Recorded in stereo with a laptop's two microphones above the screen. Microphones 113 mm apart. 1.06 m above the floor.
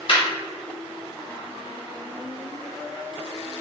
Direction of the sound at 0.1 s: 45° left (ahead or behind).